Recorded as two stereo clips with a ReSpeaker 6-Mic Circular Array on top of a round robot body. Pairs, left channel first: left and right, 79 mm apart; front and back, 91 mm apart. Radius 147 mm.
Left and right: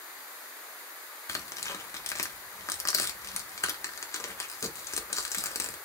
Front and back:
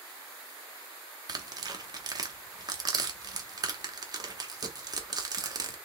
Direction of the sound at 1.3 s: 140° left.